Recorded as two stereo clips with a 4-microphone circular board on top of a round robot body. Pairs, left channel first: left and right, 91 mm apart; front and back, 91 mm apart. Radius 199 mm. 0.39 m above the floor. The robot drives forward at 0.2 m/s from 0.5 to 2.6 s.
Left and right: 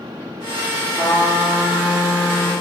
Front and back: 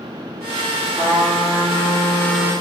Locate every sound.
1.0 s a trumpet: 90° left, 1.7 m; by 2.5 s 110° left, 1.7 m